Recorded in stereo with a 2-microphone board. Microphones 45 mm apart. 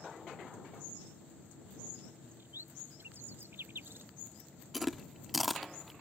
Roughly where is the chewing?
Centre.